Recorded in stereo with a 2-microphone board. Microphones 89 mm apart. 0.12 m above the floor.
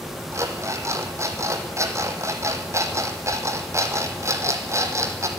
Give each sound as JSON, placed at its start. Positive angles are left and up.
{"t": 0.3, "sound": "an alarm clock", "side_deg": -35, "distance_m": 3.0}